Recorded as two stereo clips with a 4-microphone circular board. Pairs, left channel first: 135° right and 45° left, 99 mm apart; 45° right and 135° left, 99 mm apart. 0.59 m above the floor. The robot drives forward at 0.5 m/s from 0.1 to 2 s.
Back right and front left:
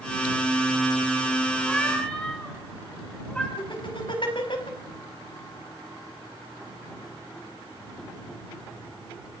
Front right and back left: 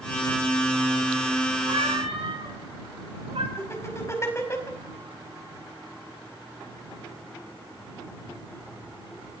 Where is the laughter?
105° right, 4.5 m.